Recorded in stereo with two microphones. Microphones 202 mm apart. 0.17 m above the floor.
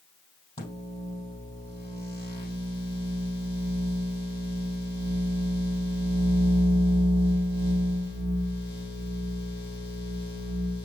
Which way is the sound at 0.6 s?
20° left (ahead or behind).